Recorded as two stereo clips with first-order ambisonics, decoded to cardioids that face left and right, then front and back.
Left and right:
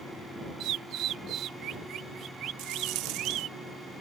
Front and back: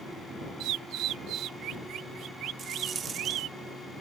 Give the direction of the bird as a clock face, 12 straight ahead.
5 o'clock.